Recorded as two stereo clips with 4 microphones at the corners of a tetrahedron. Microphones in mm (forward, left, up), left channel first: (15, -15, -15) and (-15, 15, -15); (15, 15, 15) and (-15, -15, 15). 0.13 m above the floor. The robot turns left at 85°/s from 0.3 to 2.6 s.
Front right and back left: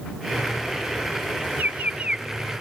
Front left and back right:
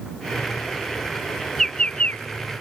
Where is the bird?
125° left; by 2.2 s 70° left.